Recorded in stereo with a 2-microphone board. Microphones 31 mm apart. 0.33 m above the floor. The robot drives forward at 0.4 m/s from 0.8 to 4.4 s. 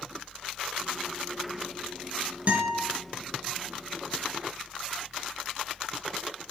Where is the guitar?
50° right (ahead or behind), 0.9 m; by 2.8 s 60° right (ahead or behind), 0.9 m.